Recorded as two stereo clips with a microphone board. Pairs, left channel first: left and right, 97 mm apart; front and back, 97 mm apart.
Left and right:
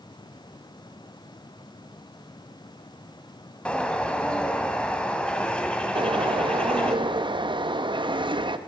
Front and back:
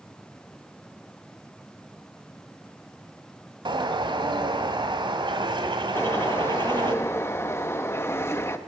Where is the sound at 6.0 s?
60° right, 0.6 m.